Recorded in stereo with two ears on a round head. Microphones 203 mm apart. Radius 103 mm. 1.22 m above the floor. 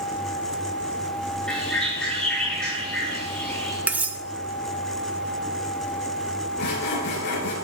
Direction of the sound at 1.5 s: 5° left (ahead or behind).